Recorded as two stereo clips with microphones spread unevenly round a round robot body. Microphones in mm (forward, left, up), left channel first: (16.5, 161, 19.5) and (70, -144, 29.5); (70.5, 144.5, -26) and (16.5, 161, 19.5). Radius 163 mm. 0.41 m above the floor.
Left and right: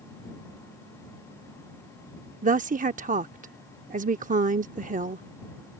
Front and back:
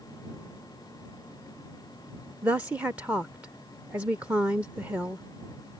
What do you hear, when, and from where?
2.4 s a woman speaking: 50° right